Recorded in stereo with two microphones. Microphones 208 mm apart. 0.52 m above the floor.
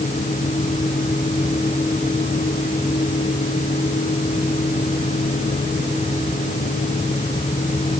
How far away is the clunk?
I don't hear a clunk.